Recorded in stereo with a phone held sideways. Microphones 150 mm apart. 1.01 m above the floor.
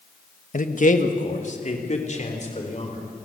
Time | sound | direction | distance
0.5 | a man speaking | 60° left (ahead or behind) | 1.3 m